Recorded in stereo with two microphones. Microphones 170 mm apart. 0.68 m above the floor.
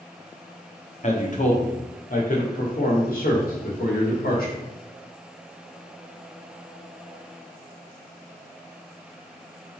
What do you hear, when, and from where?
1.0 s a man speaking: 50° left (ahead or behind), 1.5 m; by 4.6 s 70° left (ahead or behind), 3.5 m